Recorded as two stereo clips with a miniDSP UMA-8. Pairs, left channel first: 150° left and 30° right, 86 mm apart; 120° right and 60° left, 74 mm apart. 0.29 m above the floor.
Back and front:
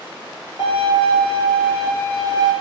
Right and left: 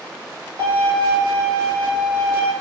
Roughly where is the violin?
Ahead.